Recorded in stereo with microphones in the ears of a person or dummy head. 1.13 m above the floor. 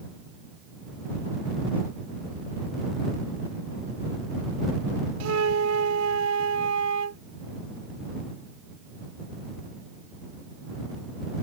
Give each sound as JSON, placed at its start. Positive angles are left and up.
{"t": 5.2, "sound": "a flute", "side_deg": -75}